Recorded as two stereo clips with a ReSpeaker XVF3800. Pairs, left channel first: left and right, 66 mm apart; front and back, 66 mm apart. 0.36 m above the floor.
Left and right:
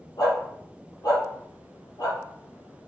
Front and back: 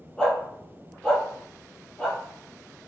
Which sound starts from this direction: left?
A dog barking, at 0.2 s.